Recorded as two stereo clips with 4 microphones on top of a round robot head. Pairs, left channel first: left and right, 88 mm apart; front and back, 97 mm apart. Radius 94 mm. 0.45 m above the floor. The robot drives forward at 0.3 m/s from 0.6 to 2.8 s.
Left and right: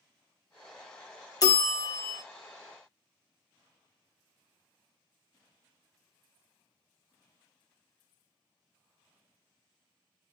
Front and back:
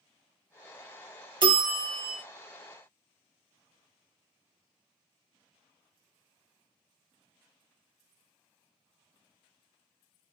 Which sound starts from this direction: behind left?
A bell, at 1.4 s.